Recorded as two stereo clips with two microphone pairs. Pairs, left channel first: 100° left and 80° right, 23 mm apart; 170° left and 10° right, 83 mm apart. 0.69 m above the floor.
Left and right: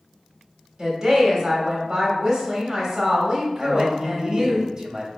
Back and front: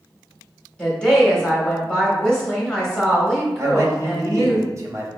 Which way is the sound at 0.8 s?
115° right.